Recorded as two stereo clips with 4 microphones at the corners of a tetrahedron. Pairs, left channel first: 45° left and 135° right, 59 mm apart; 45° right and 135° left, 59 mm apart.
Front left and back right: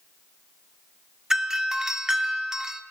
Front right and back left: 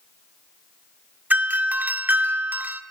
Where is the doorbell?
155° left, 1.6 m.